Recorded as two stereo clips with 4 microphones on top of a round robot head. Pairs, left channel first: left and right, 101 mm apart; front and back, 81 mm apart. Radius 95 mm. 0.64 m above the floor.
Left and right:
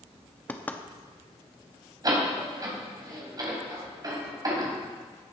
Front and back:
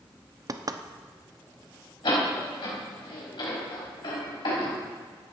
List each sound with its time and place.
0.5 s knocking: 160° left, 1.0 m
2.0 s a door slam: 40° right, 4 m